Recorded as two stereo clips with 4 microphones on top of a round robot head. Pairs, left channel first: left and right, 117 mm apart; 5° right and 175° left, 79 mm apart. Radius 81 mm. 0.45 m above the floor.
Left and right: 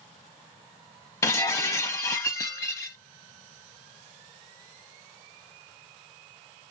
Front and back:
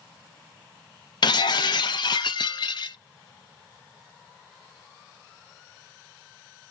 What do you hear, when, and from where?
1.2 s breaking glass: 20° left, 0.6 m